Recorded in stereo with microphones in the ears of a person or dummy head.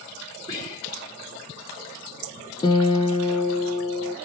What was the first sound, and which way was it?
Whispering, 25° left (ahead or behind).